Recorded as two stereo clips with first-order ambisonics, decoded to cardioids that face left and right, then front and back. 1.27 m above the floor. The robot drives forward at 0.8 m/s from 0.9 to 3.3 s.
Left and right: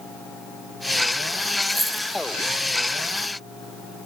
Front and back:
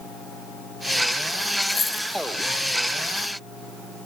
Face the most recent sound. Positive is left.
turn(degrees=-175)